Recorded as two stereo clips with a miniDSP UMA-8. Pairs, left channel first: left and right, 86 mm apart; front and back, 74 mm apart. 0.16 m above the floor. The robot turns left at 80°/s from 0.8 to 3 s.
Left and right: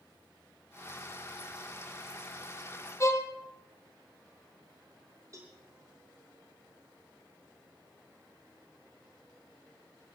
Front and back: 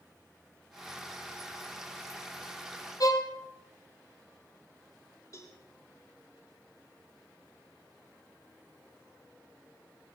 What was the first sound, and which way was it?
A violin, 35° left.